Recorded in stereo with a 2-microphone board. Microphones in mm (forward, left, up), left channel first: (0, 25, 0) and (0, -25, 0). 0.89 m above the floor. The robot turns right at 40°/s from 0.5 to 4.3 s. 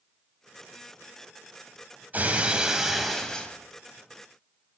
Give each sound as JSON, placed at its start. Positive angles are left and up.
{"t": 2.1, "sound": "breaking glass", "azimuth_deg": -40, "distance_m": 2.5}